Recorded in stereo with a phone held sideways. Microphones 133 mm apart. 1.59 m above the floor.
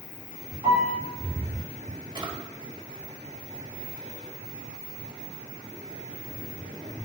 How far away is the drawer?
About 1.1 m.